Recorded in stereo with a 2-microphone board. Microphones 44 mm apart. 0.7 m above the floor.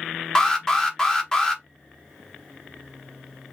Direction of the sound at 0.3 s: 15° left (ahead or behind).